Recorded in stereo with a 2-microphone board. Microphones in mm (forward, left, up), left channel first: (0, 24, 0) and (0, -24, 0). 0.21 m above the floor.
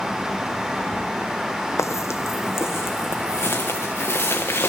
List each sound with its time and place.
1.8 s footsteps: 80° left, 0.6 m; by 4.7 s 50° left (ahead or behind), 1.9 m